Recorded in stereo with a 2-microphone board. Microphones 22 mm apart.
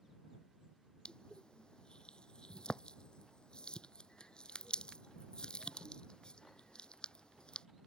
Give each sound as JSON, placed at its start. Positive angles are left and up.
{"t": 1.1, "sound": "crushing", "side_deg": 40}